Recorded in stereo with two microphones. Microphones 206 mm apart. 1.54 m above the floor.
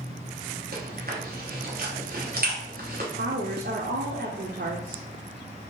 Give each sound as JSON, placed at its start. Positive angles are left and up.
{"t": 0.7, "sound": "chewing", "side_deg": -50, "distance_m": 0.8}
{"t": 3.1, "sound": "a woman speaking", "side_deg": -60, "distance_m": 0.5}